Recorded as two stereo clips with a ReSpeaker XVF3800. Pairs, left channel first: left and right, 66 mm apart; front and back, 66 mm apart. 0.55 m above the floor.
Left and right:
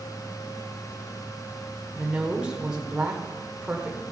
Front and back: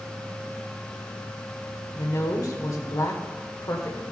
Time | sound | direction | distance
1.9 | a woman speaking | 15° right | 1.7 m